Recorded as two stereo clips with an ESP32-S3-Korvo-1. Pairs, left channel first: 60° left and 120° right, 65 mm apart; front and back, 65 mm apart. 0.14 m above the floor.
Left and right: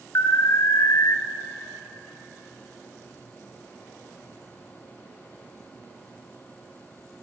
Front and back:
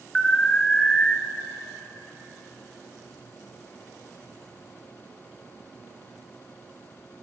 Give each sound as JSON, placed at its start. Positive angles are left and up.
{"t": 0.1, "sound": "an alarm", "azimuth_deg": 75, "distance_m": 1.5}